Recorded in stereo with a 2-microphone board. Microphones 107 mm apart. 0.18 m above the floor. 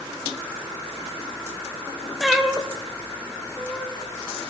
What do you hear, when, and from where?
2.2 s a cat meowing: centre (ahead or behind), 2.5 m